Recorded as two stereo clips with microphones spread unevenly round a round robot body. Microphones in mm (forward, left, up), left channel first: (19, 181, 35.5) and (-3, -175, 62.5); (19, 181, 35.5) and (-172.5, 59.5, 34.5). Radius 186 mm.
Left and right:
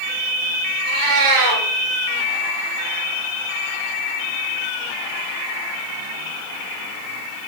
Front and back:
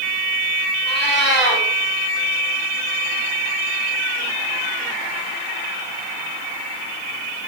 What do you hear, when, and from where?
0.8 s a cat meowing: 60° right, 2.5 m